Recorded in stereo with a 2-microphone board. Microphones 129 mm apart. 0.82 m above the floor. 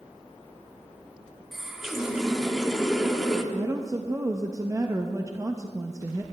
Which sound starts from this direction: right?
A woman speaking, at 3.5 s.